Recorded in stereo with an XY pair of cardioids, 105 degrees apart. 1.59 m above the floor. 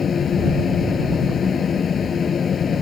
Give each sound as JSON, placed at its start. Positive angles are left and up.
{"t": 0.0, "sound": "a fan", "azimuth_deg": 45}